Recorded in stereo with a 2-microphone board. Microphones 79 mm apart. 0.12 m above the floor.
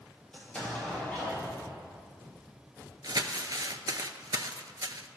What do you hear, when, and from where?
0.3 s an explosion: 15° left (ahead or behind), 3 m
3.0 s crumpling: 55° right (ahead or behind), 0.5 m